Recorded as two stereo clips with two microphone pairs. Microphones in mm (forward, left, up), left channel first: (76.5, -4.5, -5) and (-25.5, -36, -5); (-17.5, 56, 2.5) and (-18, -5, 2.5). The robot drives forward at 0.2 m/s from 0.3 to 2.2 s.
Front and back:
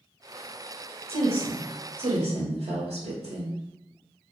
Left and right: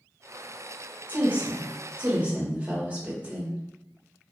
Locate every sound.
1.1 s a woman speaking: 155° right, 0.6 m; by 3.6 s 160° right, 0.8 m